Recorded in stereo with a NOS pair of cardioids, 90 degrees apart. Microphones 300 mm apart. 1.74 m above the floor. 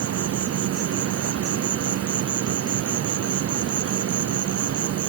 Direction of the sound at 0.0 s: 50° right.